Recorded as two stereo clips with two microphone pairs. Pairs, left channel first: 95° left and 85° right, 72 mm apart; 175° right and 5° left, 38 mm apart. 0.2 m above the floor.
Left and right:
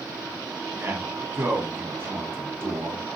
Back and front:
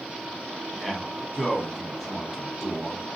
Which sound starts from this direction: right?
A man speaking, at 0.7 s.